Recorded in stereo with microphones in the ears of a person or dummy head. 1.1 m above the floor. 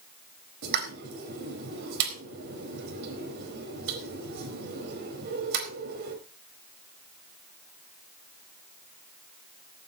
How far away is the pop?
About 4.5 m.